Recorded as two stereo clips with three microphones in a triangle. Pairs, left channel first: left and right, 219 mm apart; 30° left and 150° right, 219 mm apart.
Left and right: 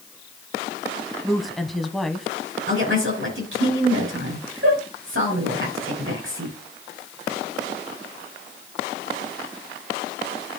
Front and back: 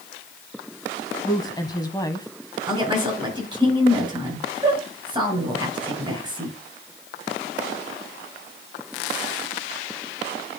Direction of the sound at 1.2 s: Straight ahead.